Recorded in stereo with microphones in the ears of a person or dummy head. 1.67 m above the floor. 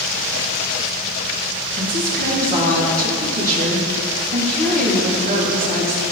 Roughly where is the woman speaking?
Right.